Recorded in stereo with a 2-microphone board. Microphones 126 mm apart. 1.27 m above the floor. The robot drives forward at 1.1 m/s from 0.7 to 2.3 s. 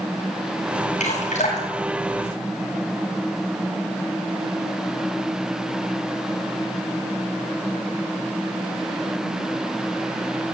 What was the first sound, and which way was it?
Dripping, 75° left (ahead or behind).